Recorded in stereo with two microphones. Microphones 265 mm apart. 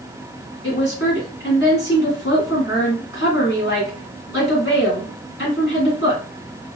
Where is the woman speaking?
50° left (ahead or behind), 2 m.